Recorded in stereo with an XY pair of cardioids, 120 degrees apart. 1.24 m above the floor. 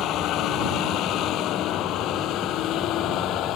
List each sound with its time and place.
0.0 s a vehicle: 70° left